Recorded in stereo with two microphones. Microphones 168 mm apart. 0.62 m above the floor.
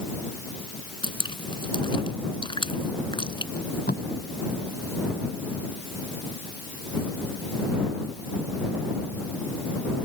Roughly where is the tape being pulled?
Left.